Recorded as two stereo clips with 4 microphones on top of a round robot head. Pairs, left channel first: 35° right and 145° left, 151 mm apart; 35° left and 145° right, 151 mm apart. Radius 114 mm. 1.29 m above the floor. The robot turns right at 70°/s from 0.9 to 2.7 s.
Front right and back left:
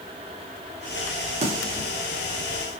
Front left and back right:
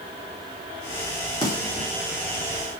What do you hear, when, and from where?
1.4 s a snare drum: 100° left, 4.5 m; by 1.9 s 130° left, 4.5 m